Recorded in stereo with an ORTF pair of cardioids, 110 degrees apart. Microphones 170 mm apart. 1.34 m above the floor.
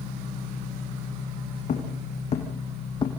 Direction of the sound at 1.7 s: 45° left.